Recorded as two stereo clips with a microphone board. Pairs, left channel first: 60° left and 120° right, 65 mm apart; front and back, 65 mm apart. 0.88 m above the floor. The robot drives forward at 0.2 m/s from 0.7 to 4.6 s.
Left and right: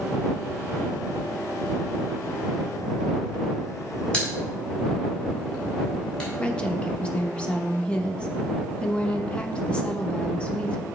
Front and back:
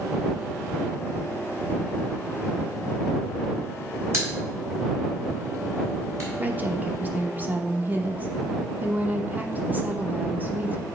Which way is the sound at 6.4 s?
125° left.